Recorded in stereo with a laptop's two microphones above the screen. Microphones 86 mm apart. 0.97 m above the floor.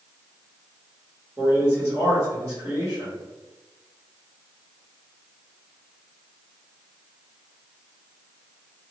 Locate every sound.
1.4 s a man speaking: 20° right (ahead or behind), 1.5 m